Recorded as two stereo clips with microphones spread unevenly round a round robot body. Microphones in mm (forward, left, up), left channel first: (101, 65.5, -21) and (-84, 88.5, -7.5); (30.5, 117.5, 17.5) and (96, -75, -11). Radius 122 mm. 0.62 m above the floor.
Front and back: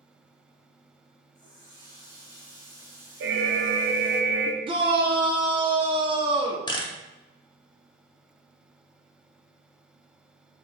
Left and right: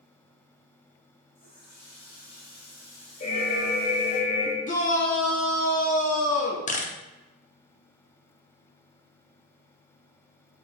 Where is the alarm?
175° left, 0.5 m.